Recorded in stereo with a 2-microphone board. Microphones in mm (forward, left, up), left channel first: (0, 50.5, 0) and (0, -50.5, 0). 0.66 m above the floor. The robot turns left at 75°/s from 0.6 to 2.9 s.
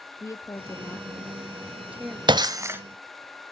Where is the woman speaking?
75° left, 0.6 m; by 2.2 s 45° right, 0.6 m.